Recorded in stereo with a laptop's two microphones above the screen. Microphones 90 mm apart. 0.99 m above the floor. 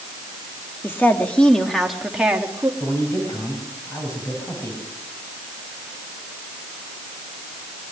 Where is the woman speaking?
25° left (ahead or behind), 1.5 m; by 2.7 s 20° right (ahead or behind), 1.5 m.